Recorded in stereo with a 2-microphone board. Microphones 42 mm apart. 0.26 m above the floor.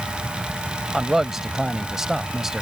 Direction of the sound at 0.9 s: 10° right (ahead or behind).